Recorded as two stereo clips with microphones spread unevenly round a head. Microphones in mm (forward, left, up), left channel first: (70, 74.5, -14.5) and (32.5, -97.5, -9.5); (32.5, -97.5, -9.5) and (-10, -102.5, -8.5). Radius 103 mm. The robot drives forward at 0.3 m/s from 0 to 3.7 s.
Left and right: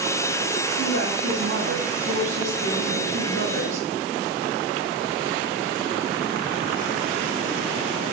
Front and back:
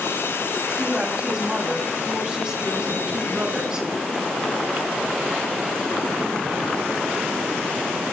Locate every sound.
0.8 s a woman speaking: 100° right, 7 m; by 3.9 s 105° right, 7.5 m